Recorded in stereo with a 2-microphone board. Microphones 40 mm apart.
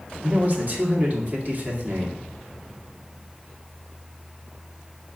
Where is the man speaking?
40° right (ahead or behind), 0.9 m.